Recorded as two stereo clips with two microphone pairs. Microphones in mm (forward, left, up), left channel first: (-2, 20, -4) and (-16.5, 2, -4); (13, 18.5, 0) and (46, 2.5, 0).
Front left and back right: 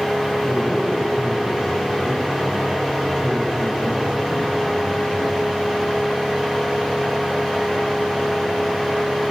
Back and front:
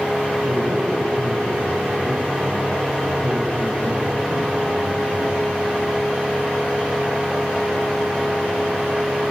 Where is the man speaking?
55° right, 9.5 m.